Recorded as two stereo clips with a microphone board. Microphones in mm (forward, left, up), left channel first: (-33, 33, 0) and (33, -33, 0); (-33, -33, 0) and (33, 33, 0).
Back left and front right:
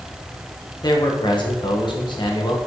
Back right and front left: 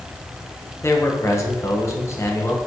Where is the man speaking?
165° left, 1.2 m.